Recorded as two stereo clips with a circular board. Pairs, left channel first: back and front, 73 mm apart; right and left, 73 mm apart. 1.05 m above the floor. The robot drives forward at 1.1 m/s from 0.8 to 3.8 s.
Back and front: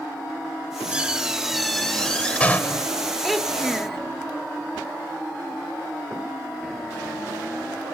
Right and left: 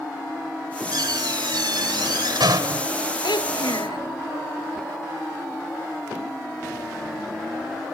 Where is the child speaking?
90° right; by 4.0 s 95° right.